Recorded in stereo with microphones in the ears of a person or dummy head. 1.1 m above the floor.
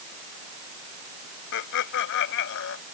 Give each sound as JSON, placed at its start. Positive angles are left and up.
{"t": 1.5, "sound": "laughter", "side_deg": 75}